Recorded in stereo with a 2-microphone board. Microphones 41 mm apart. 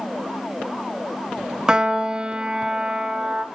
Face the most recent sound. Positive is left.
turn(degrees=-15)  # may be behind; listen again after turning